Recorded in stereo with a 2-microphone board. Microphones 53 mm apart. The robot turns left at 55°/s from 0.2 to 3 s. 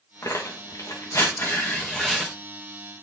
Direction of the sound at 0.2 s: 65° left (ahead or behind).